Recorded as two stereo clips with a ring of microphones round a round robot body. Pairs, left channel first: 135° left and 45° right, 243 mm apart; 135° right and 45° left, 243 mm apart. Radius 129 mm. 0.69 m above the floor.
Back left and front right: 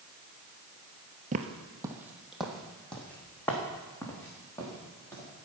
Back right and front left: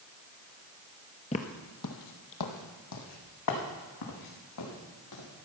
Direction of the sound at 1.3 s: 85° right.